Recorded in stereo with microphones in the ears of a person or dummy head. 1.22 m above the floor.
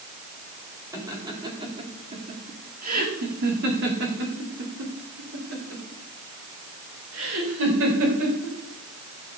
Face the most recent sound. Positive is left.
turn(degrees=-75)  # may be behind; listen again after turning